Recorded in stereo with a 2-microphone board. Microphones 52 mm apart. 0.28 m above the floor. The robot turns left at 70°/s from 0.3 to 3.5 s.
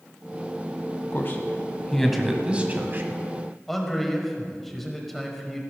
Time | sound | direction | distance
1.1 | a man speaking | 50° left (ahead or behind) | 1.5 m
3.7 | a man speaking | 5° left (ahead or behind) | 1.6 m